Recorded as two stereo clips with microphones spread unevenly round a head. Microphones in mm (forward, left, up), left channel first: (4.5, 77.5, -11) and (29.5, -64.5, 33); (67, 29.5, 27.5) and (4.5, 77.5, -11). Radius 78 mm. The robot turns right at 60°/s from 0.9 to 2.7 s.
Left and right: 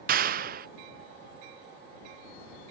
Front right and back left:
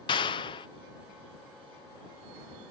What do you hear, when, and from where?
0.1 s a clap: 60° right